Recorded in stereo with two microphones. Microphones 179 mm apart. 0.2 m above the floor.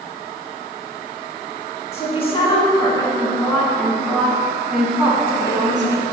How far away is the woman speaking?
About 2.0 m.